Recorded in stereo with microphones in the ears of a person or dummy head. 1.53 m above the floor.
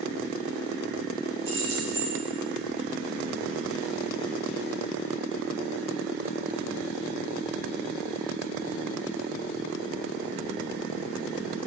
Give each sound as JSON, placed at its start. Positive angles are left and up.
{"t": 1.4, "sound": "keys jangling", "side_deg": -40, "distance_m": 3.0}